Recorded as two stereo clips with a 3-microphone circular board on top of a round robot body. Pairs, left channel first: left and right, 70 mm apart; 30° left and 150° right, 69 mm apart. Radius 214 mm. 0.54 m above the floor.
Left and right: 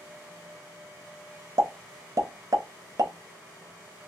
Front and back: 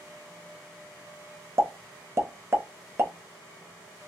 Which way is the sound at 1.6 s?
105° right.